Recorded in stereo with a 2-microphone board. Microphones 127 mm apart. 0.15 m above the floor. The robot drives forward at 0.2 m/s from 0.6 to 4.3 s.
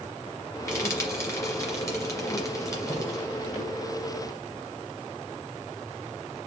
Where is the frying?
20° left (ahead or behind), 2 m; by 3.2 s 25° left (ahead or behind), 1.9 m.